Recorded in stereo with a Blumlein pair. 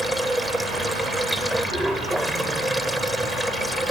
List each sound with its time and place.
0.0 s running water: 5° right